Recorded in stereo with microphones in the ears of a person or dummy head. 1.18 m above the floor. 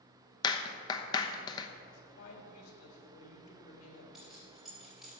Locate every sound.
0.4 s a clap: 20° left (ahead or behind), 0.9 m
1.9 s a woman speaking: 80° left, 3 m
4.1 s keys jangling: 5° right (ahead or behind), 3.5 m